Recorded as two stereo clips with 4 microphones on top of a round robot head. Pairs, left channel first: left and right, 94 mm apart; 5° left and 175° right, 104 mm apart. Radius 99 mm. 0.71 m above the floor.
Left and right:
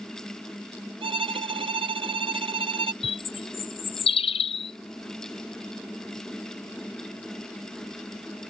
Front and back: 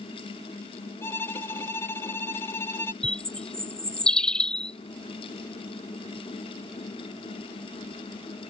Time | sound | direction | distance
1.0 | a violin | 70° right | ?
3.0 | a bird | 85° left | ?